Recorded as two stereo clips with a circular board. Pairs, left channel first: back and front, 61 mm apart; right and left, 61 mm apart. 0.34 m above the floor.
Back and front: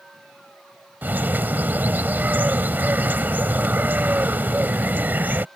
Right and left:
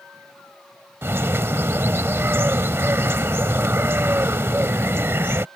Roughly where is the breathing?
I don't hear breathing.